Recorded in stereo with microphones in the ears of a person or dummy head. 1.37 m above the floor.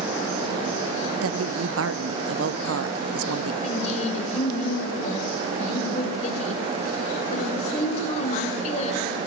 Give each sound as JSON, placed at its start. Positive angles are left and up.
{"t": 1.2, "sound": "a woman speaking", "side_deg": -75, "distance_m": 0.8}
{"t": 3.6, "sound": "a woman speaking", "side_deg": 40, "distance_m": 5.0}